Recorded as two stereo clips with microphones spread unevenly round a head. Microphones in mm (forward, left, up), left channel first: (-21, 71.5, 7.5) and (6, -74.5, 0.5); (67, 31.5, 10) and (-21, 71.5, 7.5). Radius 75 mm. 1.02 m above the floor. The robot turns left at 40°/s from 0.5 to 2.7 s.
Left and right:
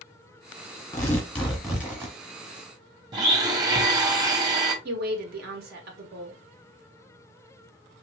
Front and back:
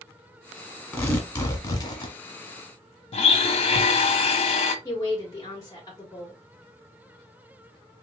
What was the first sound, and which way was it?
Tearing paper, 40° left.